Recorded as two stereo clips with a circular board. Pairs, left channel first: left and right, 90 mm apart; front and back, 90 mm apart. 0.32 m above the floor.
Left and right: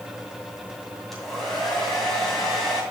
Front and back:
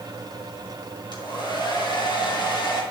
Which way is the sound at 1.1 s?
5° left.